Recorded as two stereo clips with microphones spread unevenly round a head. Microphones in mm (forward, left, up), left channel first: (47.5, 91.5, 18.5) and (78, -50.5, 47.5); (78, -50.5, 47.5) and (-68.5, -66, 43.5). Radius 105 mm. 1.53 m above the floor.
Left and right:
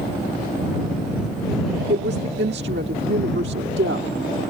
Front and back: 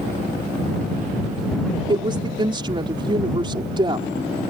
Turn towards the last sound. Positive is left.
turn(degrees=-115)